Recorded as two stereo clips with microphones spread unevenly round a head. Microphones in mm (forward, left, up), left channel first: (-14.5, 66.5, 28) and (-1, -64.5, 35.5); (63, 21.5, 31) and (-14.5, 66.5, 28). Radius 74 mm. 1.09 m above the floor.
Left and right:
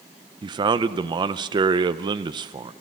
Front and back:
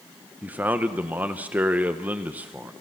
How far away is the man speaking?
About 0.7 m.